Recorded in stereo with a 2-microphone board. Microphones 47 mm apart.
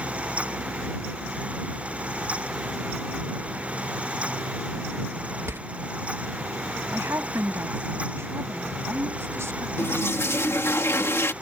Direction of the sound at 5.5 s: 75° right (ahead or behind).